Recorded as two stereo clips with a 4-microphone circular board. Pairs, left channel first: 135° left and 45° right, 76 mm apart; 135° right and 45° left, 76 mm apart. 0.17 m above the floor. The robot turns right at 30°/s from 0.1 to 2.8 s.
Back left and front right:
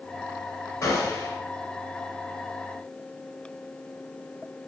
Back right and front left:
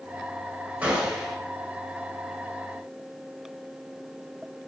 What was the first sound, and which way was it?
A gunshot, 115° left.